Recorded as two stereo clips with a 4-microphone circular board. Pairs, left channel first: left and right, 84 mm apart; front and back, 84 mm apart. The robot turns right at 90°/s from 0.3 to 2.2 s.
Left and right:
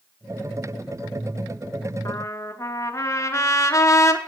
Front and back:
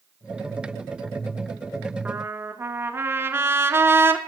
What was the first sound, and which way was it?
A trumpet, 115° left.